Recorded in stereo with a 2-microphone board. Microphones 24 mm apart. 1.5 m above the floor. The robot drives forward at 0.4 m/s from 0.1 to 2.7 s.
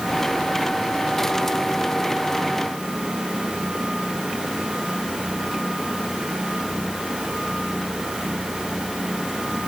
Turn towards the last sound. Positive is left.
No sound to turn to.